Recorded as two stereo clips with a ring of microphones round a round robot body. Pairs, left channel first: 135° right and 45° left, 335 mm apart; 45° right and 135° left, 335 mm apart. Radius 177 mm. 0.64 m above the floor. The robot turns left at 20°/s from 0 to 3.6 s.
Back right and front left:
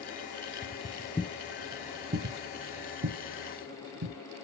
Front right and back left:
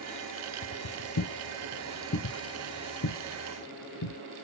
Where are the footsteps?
65° right, 0.9 m; by 4.2 s straight ahead, 1.9 m.